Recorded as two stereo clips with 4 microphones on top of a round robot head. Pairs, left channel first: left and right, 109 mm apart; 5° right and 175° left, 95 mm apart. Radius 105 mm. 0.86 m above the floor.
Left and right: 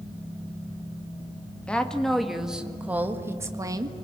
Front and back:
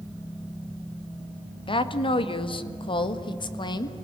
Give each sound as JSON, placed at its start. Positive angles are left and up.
{"t": 1.7, "sound": "a woman speaking", "azimuth_deg": 10, "distance_m": 1.7}